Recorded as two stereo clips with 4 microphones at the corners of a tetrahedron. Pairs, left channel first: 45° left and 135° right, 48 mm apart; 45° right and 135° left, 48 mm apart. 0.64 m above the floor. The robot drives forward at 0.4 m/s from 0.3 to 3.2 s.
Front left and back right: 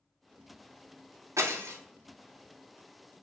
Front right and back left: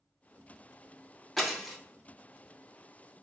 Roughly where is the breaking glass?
Behind right.